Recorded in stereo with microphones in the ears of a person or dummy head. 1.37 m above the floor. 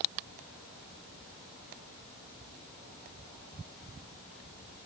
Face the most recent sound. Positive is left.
No sound to turn to.